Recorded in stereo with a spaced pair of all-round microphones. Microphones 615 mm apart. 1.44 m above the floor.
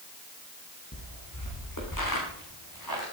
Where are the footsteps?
25° left (ahead or behind), 6 m; by 3.0 s 35° left (ahead or behind), 8.5 m.